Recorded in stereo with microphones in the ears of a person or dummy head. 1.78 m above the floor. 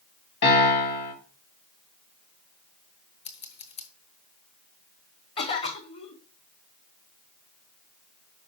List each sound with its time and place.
0.4 s a piano: 60° left (ahead or behind), 3.5 m
3.2 s scissors: 30° left (ahead or behind), 1.1 m
5.4 s a cough: 35° left (ahead or behind), 1.6 m